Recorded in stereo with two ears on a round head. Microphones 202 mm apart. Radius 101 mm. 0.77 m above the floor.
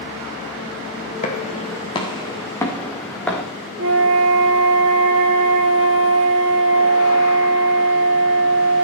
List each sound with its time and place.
1.2 s footsteps: 35° left (ahead or behind), 2.5 m; by 3.4 s 5° left (ahead or behind), 3.5 m
3.8 s a flute: 65° right (ahead or behind), 4 m